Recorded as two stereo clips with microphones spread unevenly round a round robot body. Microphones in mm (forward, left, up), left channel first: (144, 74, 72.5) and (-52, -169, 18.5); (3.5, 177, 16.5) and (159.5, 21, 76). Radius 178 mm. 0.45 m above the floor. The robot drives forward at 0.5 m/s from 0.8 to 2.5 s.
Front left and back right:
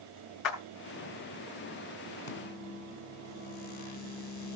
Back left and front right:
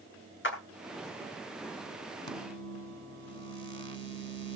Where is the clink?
I don't hear a clink.